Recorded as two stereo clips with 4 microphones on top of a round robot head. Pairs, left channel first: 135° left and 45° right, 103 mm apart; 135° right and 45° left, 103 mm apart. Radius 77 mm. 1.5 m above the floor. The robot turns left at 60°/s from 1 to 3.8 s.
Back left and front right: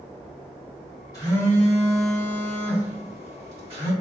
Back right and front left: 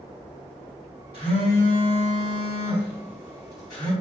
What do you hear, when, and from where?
1.1 s a phone buzzing: 75° left, 1.9 m; by 3.9 s 85° right, 1.9 m